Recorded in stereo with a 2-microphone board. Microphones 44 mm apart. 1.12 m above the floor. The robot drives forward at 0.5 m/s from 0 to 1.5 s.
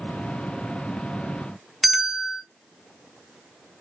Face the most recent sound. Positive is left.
turn(degrees=5)  # may be behind; listen again after turning